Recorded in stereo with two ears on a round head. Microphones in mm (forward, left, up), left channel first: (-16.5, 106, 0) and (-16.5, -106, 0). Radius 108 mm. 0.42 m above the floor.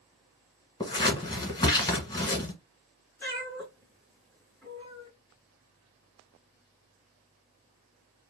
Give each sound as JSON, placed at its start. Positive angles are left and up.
{"t": 0.8, "sound": "scissors", "side_deg": 20, "distance_m": 1.1}
{"t": 3.2, "sound": "a cat meowing", "side_deg": 10, "distance_m": 3.0}